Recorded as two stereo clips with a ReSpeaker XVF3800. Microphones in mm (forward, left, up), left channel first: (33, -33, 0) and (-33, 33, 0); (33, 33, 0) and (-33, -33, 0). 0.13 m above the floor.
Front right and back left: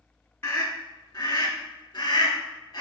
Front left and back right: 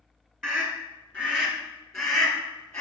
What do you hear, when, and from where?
0.4 s a scream: 40° right, 1.4 m; by 2.8 s 10° right, 2.5 m